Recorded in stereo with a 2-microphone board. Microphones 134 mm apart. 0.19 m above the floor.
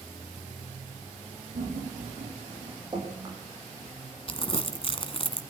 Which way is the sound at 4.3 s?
45° left (ahead or behind).